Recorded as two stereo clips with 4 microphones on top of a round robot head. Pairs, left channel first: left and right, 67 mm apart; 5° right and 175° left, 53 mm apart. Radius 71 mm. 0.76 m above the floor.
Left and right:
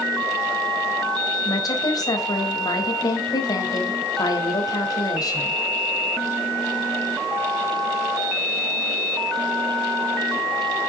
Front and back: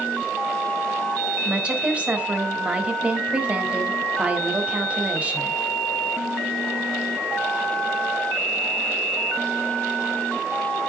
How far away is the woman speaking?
About 3.5 m.